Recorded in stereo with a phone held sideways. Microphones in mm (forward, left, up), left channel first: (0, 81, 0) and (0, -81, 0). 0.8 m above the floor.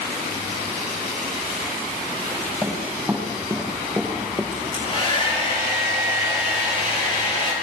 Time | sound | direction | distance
2.6 | running footsteps | centre (ahead or behind) | 6 m
4.5 | a hair dryer | 35° left (ahead or behind) | 9 m